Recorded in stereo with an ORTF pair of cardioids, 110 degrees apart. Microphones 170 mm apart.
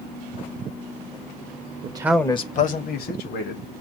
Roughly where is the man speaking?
Ahead right.